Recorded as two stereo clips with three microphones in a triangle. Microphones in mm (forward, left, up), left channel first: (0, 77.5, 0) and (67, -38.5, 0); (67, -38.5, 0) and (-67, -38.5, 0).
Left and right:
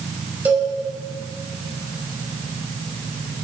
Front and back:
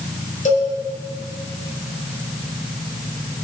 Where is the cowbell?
15° left, 2.5 m.